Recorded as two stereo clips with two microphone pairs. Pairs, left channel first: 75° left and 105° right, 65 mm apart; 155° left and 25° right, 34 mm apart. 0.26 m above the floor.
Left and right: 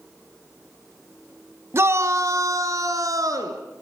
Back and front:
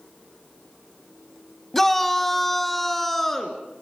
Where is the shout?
130° right, 1.2 m; by 3.6 s 125° right, 3 m.